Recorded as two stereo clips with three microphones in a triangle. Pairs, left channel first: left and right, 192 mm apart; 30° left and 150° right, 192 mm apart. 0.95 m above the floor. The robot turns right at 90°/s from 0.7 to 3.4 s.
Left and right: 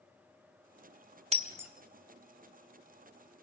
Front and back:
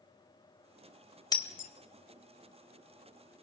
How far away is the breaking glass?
About 1.3 m.